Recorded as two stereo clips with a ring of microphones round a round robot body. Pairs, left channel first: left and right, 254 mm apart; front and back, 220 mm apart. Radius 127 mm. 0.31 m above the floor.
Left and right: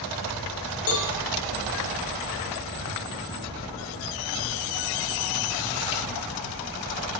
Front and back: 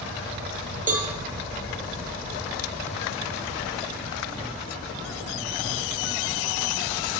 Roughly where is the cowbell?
Behind left.